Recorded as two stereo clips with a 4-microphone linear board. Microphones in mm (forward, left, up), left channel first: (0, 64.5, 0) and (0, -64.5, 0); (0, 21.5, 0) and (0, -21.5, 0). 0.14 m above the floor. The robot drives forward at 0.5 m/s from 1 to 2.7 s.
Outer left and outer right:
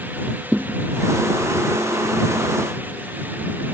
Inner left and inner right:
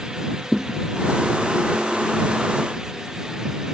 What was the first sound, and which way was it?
A thud, 5° right (ahead or behind).